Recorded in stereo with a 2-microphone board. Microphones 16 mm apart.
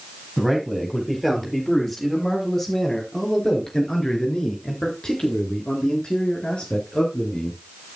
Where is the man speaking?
10° left (ahead or behind), 8.5 m; by 7.6 s 80° left, 6 m.